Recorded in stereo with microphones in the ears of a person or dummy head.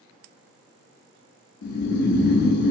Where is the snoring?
60° left (ahead or behind), 0.5 m.